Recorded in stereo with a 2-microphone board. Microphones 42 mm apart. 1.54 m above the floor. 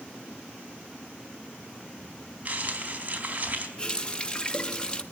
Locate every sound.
2.5 s crumpling: 35° right (ahead or behind), 4.5 m
3.8 s a running tap: 25° left (ahead or behind), 1.4 m